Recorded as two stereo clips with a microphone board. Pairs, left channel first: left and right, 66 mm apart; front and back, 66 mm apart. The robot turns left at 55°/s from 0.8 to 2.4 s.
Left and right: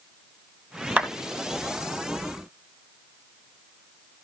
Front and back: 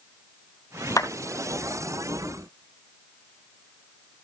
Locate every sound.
1.0 s a clap: 25° right, 3 m; by 1.1 s 35° right, 3 m